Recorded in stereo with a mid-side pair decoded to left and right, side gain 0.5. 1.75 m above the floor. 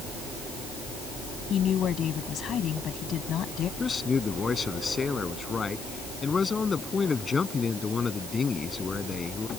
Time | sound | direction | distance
1.5 | a woman speaking | 50° left | ?
3.8 | a man speaking | 30° left | ?